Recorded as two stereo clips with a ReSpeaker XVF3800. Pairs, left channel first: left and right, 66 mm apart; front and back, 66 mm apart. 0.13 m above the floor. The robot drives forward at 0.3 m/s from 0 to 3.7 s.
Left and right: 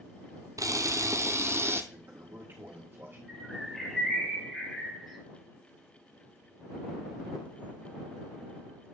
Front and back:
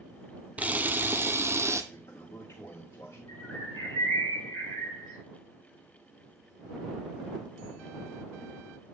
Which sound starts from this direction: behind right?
A camera shutter, at 0.6 s.